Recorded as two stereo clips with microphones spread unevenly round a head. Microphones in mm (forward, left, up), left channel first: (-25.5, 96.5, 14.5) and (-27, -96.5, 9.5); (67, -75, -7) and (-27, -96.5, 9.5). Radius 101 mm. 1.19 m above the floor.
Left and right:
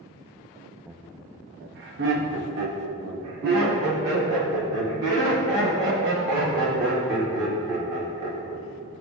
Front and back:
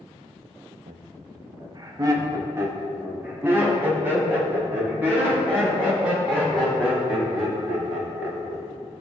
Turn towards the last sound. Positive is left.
turn(degrees=-95)